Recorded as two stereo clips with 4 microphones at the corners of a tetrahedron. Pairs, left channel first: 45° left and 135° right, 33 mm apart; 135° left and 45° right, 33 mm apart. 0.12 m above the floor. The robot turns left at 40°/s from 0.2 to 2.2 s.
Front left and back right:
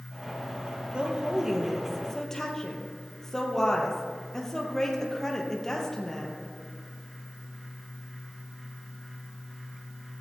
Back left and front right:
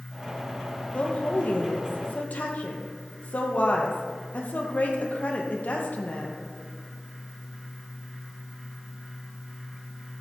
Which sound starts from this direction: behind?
A woman speaking, at 0.9 s.